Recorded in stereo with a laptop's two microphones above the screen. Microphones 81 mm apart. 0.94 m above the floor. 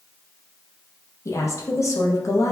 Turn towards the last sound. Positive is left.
turn(degrees=40)  # may be behind; listen again after turning